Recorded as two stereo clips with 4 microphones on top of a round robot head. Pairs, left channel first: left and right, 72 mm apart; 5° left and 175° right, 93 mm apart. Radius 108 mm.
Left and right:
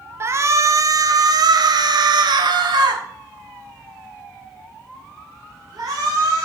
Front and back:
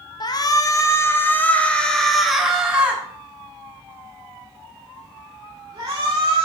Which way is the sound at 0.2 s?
40° right.